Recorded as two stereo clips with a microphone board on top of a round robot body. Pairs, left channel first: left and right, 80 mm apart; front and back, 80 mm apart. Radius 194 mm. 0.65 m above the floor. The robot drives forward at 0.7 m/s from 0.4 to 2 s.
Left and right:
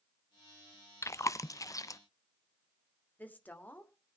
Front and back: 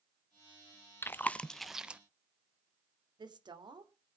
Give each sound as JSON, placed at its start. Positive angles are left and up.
{"t": 1.0, "sound": "chewing", "azimuth_deg": 50, "distance_m": 1.0}
{"t": 3.2, "sound": "a woman speaking", "azimuth_deg": 160, "distance_m": 2.5}